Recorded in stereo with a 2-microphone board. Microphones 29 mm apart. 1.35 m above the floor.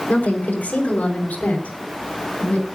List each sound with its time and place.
0.1 s a woman speaking: 85° left, 4.5 m; by 2.6 s 65° left (ahead or behind), 6.5 m